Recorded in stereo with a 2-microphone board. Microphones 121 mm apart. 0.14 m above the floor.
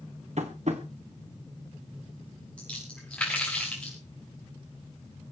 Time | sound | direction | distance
0.4 | tapping | 70° right (ahead or behind) | 2.5 m
2.6 | a splash | 10° left (ahead or behind) | 6 m